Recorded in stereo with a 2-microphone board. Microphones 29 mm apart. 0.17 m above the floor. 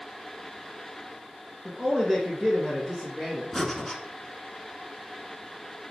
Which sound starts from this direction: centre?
Breathing, at 3.5 s.